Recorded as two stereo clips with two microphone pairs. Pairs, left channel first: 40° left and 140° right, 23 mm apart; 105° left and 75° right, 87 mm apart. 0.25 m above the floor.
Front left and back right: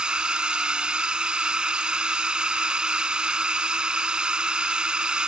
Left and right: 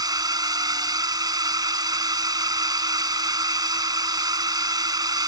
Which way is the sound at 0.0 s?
100° right.